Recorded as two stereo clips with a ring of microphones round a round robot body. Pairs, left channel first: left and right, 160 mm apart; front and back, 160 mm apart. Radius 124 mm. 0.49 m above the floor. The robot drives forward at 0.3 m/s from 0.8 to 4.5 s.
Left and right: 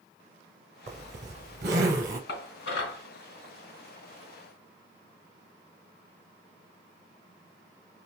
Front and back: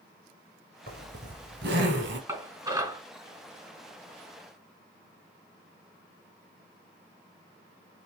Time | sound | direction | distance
0.9 | a zipper | 130° right | 1.3 m
2.3 | dishes clattering | 105° left | 3.5 m